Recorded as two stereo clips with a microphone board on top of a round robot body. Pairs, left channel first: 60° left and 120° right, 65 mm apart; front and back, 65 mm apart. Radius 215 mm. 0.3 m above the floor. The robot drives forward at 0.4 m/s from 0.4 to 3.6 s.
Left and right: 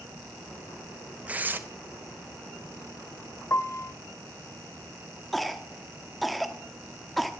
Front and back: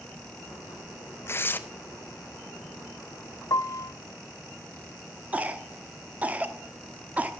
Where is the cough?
145° left, 1.1 m.